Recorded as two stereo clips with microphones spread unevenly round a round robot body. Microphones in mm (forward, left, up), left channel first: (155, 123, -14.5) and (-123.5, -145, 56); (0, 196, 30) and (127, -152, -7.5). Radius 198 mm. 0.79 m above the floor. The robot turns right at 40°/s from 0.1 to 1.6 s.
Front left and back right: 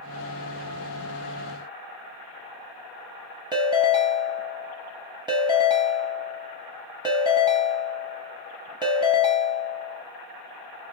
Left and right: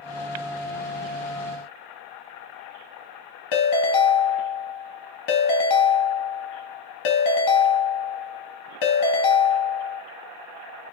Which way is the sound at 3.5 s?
145° left.